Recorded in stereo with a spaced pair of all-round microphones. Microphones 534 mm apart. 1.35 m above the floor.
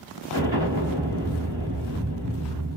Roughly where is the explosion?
Right.